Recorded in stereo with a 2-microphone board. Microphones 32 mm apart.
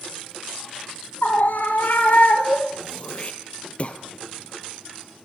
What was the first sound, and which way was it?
A scream, 70° left (ahead or behind).